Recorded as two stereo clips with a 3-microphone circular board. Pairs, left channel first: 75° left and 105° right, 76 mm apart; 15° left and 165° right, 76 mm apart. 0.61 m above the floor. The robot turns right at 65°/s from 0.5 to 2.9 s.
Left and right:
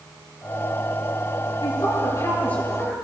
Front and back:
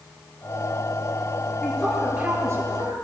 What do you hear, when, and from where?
1.6 s a woman speaking: 85° left, 9.5 m; by 2.9 s 170° left, 9.5 m